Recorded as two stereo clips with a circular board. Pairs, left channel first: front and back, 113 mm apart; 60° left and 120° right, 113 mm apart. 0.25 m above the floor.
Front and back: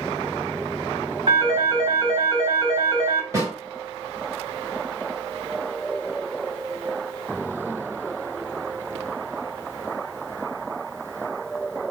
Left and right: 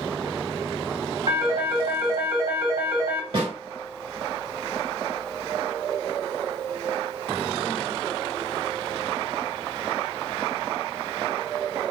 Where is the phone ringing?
145° right, 2 m.